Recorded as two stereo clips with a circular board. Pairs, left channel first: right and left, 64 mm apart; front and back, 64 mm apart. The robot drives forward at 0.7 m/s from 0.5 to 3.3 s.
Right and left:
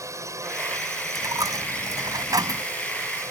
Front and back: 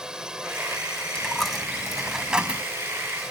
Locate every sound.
0.0 s a drone: 105° left
1.1 s a dropped coin: 80° left; by 2.6 s 110° left